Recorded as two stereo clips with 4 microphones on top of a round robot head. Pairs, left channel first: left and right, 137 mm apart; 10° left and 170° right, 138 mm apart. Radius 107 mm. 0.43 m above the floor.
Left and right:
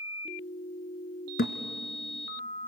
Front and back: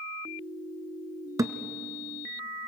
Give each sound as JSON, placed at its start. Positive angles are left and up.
{"t": 1.4, "sound": "a thud", "azimuth_deg": 125, "distance_m": 0.9}